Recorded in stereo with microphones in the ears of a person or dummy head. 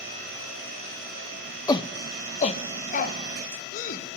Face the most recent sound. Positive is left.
turn(degrees=50)  # may be behind; listen again after turning